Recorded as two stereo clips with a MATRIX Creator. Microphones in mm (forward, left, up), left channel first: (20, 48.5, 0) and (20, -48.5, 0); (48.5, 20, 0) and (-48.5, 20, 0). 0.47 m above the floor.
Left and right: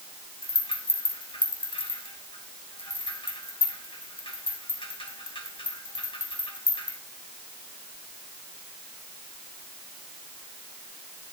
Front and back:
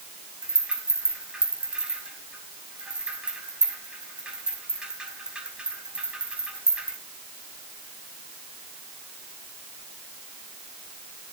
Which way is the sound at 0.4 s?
100° left.